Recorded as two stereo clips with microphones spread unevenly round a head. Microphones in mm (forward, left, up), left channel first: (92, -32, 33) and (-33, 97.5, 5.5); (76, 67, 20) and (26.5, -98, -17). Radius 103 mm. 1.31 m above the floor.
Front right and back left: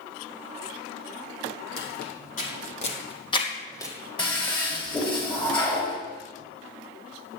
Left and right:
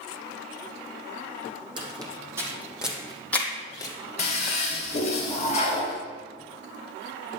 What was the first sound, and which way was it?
Footsteps, 40° right.